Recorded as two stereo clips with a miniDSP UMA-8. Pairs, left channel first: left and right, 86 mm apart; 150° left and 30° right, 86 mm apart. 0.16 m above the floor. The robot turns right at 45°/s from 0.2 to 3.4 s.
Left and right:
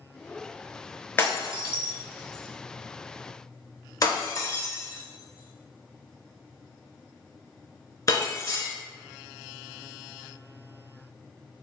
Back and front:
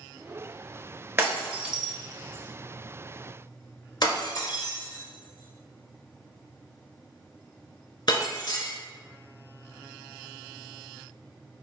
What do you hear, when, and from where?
1.2 s breaking glass: 30° left, 0.7 m; by 8.7 s 130° left, 0.7 m